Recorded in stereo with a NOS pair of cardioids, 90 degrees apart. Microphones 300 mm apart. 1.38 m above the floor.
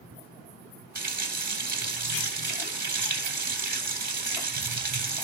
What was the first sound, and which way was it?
A running tap, 30° right.